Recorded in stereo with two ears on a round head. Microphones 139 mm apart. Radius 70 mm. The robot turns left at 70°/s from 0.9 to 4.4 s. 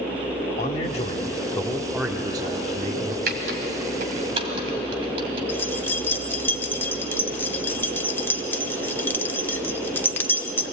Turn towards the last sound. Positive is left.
turn(degrees=15)  # may be behind; listen again after turning